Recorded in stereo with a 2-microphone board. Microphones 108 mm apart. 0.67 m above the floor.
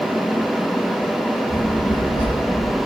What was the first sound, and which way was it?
A child speaking, 50° left (ahead or behind).